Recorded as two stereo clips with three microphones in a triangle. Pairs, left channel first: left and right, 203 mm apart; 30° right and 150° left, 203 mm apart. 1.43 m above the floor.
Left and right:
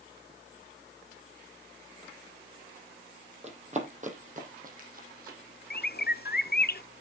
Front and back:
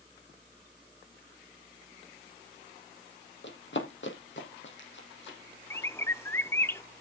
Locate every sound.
3.4 s running footsteps: 35° right, 3 m; by 5.4 s 50° right, 4 m
5.7 s a bird: 45° left, 0.6 m